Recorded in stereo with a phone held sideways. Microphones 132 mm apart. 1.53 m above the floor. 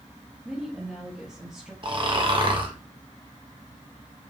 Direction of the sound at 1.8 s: 40° right (ahead or behind).